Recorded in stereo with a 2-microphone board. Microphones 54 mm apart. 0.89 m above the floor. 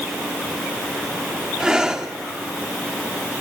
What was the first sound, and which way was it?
Breathing, 15° right (ahead or behind).